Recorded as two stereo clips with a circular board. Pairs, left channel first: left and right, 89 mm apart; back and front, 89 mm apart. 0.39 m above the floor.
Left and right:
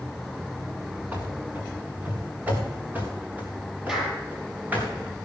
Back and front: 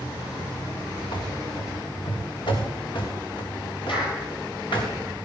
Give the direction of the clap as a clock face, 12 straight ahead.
6 o'clock.